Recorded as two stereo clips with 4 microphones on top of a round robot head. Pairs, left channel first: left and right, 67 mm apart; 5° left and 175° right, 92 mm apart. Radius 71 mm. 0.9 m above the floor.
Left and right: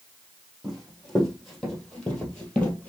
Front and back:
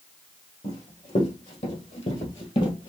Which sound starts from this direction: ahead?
Running footsteps, at 0.6 s.